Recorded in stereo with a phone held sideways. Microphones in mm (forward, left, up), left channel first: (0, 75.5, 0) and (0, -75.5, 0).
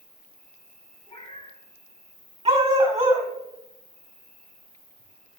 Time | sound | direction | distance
0.0 | an insect | 75° left (ahead or behind) | 1.9 m
1.1 | a cat meowing | 30° left (ahead or behind) | 3.5 m
2.5 | a dog barking | 40° right (ahead or behind) | 1.5 m